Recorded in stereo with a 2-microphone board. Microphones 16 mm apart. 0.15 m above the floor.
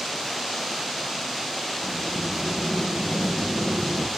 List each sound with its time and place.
1.8 s a sliding door: 55° right (ahead or behind), 3.5 m